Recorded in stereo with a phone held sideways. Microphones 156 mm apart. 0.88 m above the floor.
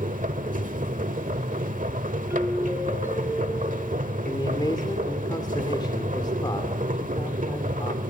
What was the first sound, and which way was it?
A machine running, 60° right (ahead or behind).